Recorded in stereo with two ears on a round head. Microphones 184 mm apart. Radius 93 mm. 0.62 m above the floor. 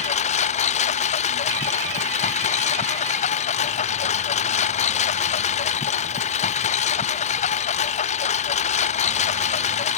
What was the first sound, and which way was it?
A lawn mower, 35° left (ahead or behind).